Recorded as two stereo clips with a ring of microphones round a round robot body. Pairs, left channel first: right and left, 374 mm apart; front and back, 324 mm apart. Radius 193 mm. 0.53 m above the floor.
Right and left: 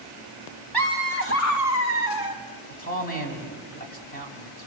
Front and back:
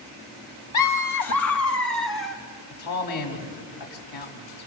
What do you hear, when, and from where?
0.7 s laughter: 5° right, 1.0 m; by 2.4 s 60° right, 2.5 m
2.7 s a man speaking: 25° right, 5 m